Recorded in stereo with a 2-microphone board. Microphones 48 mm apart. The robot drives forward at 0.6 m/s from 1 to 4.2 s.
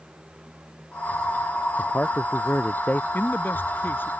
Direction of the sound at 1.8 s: 35° left (ahead or behind).